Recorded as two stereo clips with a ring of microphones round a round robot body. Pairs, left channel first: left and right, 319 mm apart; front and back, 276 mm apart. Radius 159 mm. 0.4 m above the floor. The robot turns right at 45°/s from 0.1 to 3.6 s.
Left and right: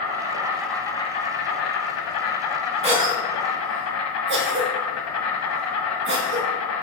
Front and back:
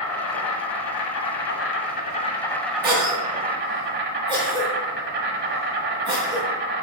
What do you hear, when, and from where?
0.0 s an insect: 30° right, 1.3 m; by 6.8 s 130° left, 1.3 m
2.8 s a cough: 150° right, 0.9 m; by 6.5 s 115° right, 0.9 m